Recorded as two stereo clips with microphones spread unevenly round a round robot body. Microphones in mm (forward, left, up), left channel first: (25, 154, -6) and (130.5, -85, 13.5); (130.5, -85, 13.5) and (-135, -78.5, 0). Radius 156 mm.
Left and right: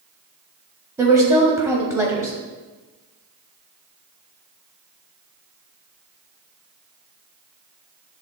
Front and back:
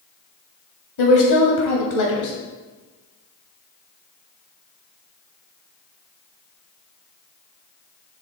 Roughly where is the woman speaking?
Ahead.